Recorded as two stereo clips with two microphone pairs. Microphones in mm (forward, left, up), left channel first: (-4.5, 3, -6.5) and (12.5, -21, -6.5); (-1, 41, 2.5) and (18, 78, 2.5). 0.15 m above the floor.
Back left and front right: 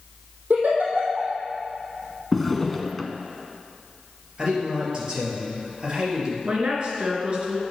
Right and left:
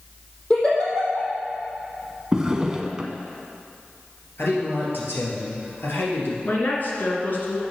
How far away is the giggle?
About 3.5 m.